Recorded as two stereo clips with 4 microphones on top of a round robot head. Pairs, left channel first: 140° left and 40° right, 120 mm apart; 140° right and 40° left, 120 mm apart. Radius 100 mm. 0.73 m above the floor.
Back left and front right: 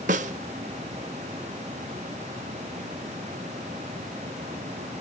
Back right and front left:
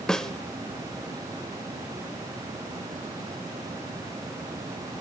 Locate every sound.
0.1 s a snare drum: 55° right, 0.5 m